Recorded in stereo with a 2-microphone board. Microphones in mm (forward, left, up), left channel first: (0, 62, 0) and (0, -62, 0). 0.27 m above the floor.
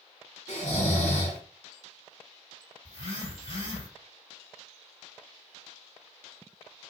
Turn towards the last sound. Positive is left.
turn(degrees=55)  # may be behind; listen again after turning